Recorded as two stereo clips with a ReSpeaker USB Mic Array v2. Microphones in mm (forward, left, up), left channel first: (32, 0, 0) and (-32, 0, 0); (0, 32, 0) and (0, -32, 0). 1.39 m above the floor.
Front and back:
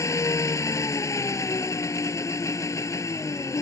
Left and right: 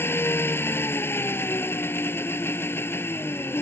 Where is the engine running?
35° left.